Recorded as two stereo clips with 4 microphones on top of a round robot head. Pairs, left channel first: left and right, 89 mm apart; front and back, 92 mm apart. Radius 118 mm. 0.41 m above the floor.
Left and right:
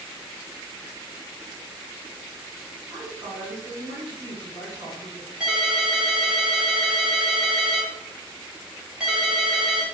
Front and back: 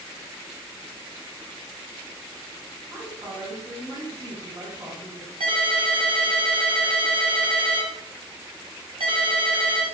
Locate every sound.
2.9 s a woman speaking: 135° right, 2.5 m
5.4 s a ringtone: 170° right, 1.4 m